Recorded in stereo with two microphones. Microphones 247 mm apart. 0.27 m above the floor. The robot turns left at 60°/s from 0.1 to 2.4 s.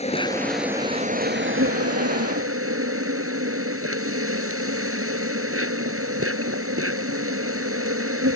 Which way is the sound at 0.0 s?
25° left.